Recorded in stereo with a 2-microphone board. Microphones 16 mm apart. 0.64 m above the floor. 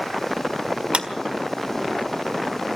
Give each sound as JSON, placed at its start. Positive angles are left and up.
{"t": 0.9, "sound": "a clap", "side_deg": -65, "distance_m": 1.7}